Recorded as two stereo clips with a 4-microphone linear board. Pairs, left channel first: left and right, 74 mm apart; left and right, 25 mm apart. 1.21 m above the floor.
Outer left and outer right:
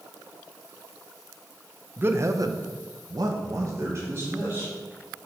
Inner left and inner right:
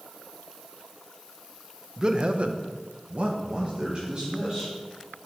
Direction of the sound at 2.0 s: 30° right (ahead or behind).